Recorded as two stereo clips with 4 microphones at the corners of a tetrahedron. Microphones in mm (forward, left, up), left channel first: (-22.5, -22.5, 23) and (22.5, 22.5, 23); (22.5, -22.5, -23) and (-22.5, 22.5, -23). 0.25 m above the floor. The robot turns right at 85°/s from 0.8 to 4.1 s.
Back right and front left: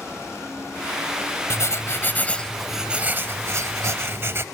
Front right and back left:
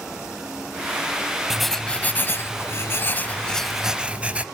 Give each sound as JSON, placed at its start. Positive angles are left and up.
{"t": 1.5, "sound": "writing", "azimuth_deg": -145, "distance_m": 0.6}